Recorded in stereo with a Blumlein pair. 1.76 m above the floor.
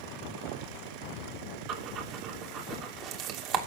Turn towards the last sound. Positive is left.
turn(degrees=-35)